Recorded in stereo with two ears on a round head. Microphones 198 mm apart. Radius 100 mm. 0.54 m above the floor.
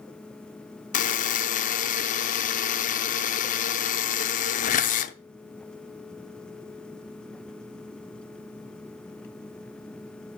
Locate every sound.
0.9 s a buzzer: 35° left (ahead or behind), 0.5 m